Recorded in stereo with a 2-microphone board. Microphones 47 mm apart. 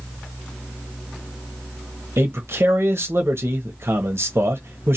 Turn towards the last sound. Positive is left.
turn(degrees=-60)  # may be behind; listen again after turning